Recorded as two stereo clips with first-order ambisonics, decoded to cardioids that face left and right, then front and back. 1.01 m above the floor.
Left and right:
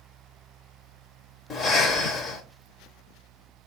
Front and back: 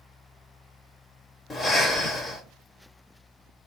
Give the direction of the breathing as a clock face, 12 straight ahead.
10 o'clock.